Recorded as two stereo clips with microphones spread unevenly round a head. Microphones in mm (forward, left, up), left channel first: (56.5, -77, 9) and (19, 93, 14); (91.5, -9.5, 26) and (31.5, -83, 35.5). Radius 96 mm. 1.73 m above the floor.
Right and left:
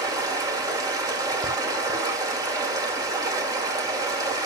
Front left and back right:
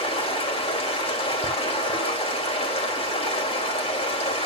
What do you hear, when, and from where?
0.0 s running water: 35° left, 3 m